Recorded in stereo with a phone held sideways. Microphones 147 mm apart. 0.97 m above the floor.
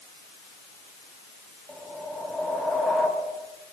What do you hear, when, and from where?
1.7 s a whoosh: 5° left (ahead or behind), 3.5 m